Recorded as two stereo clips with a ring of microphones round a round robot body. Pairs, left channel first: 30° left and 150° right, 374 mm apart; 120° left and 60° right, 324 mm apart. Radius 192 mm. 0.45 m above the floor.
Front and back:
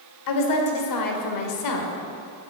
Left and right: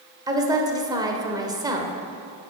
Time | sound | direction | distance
0.3 | a woman speaking | 15° left | 1.6 m